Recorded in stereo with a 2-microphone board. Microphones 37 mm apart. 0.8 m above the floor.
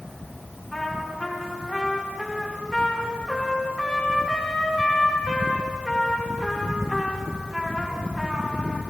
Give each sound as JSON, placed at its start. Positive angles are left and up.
{"t": 0.7, "sound": "a trumpet", "side_deg": 20, "distance_m": 1.8}